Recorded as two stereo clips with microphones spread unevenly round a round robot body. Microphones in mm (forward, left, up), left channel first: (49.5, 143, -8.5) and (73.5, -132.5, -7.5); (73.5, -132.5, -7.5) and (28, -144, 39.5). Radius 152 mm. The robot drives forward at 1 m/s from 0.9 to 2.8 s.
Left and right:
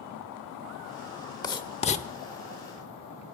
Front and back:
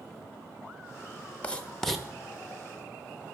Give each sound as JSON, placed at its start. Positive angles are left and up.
{"t": 1.4, "sound": "writing", "azimuth_deg": 20, "distance_m": 1.2}